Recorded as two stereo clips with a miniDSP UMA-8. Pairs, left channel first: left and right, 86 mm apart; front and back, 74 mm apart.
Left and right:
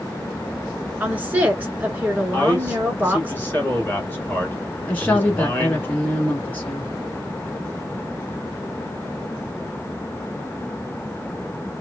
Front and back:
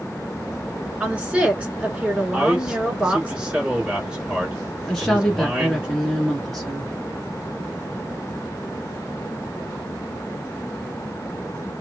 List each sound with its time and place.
1.0 s a woman speaking: 125° right, 1.2 m
2.3 s a man speaking: 115° left, 1.2 m
4.9 s a woman speaking: 70° left, 1.3 m